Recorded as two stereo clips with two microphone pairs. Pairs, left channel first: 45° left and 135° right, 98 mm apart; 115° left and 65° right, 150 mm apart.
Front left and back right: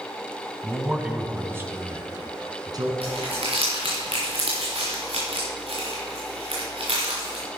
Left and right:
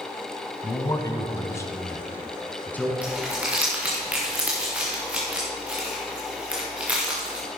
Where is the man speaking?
140° left, 1.3 m; by 2.9 s 165° right, 2.0 m.